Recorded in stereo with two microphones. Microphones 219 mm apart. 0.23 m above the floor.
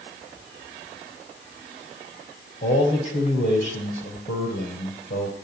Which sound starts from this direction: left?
A man speaking, at 2.6 s.